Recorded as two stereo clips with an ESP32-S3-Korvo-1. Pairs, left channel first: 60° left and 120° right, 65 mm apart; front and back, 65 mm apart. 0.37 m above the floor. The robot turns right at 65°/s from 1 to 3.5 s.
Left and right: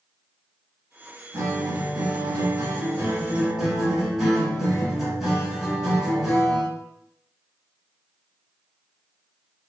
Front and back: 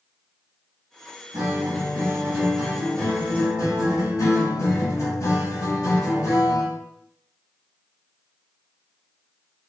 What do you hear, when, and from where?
1.3 s a guitar: 175° right, 1.2 m; by 6.8 s 35° right, 1.2 m